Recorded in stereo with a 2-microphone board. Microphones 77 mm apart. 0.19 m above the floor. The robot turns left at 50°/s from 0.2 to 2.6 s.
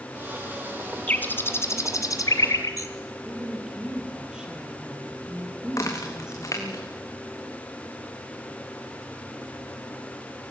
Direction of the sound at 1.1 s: 20° left (ahead or behind).